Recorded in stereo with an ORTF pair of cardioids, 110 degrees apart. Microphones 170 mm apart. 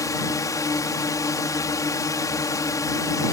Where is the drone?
20° left.